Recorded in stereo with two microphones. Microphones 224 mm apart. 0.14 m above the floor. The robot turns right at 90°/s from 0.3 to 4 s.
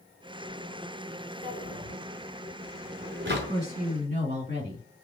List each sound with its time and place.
1.4 s a drawer: 45° left (ahead or behind), 1.3 m; by 3.5 s 40° right (ahead or behind), 1.3 m
3.5 s a woman speaking: 95° right, 2.5 m; by 4.8 s 45° right, 2.5 m